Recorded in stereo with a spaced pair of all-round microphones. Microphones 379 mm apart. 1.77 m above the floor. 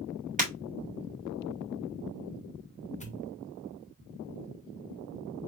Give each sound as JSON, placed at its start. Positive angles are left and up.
{"t": 0.4, "sound": "breaking glass", "side_deg": -20, "distance_m": 4.0}
{"t": 3.0, "sound": "a pop", "side_deg": 20, "distance_m": 1.9}